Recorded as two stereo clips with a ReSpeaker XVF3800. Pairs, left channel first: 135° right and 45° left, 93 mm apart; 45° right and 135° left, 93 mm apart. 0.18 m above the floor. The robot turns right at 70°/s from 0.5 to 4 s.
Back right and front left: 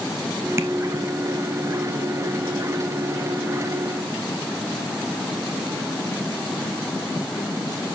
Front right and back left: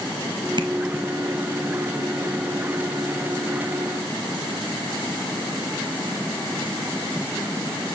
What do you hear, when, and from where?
0.6 s tapping: 105° left, 1.0 m; by 0.7 s 115° left, 1.0 m